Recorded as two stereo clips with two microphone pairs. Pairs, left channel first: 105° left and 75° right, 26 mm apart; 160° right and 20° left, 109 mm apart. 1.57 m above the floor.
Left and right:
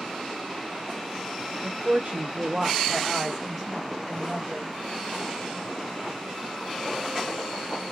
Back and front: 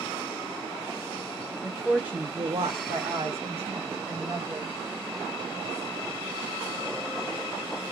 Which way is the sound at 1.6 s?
80° right.